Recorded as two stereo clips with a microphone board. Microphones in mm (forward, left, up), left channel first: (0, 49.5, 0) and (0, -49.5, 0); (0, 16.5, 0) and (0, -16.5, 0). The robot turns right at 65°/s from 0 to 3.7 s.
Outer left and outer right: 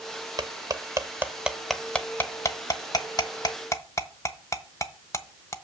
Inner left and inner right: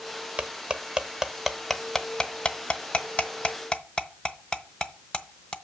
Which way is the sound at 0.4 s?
45° right (ahead or behind).